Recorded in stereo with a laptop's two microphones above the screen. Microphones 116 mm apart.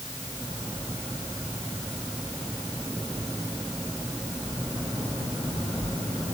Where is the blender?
I don't hear a blender.